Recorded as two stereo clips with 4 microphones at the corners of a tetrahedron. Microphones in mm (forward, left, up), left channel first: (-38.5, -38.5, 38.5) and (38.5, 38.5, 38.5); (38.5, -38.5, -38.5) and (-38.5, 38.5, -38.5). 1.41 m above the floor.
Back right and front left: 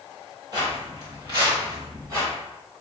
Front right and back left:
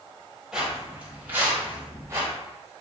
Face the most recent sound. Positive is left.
turn(degrees=90)